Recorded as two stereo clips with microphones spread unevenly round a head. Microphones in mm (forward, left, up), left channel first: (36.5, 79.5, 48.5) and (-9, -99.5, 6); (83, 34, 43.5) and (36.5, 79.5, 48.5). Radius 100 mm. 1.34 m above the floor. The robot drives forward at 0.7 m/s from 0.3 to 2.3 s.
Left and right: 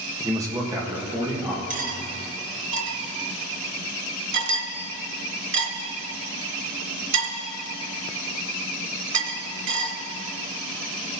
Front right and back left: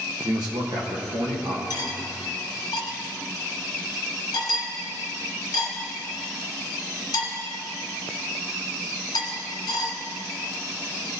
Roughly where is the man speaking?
Behind.